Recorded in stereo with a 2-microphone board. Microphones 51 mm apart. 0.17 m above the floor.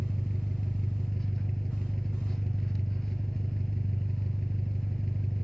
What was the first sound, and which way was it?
An engine running, 10° left (ahead or behind).